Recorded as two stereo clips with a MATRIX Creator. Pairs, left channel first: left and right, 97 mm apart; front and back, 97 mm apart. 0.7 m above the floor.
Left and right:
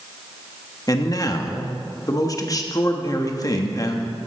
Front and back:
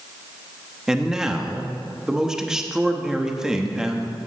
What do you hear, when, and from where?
0.9 s a man speaking: 100° left, 1.0 m